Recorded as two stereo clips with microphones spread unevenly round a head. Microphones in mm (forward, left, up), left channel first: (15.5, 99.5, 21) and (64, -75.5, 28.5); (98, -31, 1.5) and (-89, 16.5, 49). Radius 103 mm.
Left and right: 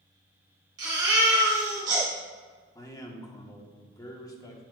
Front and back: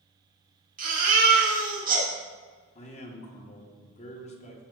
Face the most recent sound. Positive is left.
turn(degrees=35)